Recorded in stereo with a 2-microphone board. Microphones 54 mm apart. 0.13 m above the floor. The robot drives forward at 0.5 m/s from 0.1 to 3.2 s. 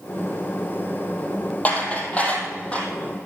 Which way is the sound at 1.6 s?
30° left (ahead or behind).